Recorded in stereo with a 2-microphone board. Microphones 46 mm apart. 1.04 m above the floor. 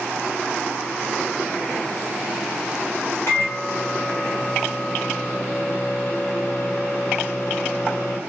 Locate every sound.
3.3 s a microwave: 60° left (ahead or behind), 1.0 m